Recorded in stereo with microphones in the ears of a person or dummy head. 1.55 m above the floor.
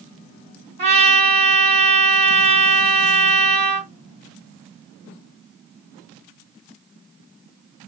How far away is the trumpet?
About 2.5 m.